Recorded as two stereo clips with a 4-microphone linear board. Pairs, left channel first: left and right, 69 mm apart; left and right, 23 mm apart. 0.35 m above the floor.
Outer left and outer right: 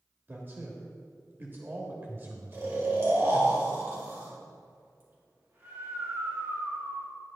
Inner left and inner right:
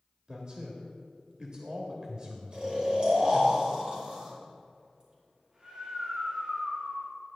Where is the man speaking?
30° right (ahead or behind), 1.2 m.